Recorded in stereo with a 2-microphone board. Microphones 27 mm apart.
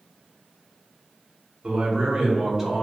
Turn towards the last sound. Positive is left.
turn(degrees=-5)  # may be behind; listen again after turning